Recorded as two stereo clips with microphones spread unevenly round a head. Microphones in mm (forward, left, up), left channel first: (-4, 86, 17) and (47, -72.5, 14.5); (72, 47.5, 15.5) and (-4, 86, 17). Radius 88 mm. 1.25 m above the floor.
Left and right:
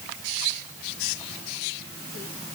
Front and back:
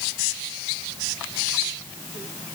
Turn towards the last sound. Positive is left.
No sound to turn to.